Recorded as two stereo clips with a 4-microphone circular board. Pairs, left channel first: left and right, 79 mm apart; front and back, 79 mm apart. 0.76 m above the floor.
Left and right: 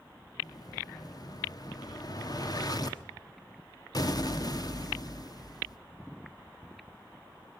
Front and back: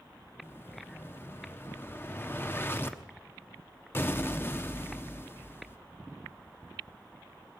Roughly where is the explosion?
Ahead left.